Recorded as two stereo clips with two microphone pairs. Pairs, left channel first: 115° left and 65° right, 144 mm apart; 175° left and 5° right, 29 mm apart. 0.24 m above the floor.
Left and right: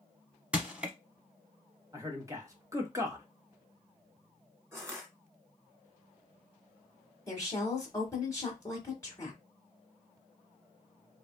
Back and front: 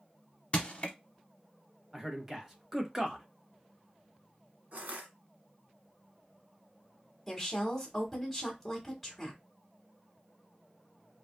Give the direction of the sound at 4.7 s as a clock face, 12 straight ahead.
12 o'clock.